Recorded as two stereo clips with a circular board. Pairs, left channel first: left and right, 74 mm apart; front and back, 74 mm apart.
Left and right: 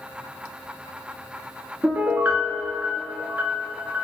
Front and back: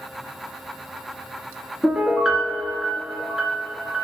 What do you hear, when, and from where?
1.8 s a piano: 105° right, 0.9 m